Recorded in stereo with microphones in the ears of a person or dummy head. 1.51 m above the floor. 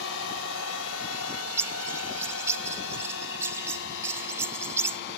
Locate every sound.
0.0 s a drone: 65° left (ahead or behind); by 5.2 s 70° left (ahead or behind)
1.1 s a bird: 10° right (ahead or behind)